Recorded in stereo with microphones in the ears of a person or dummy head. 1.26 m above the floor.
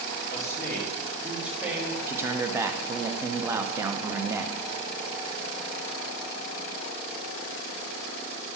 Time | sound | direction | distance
0.3 | a man speaking | 20° left (ahead or behind) | 1.7 m
2.1 | a man speaking | 10° right (ahead or behind) | 0.5 m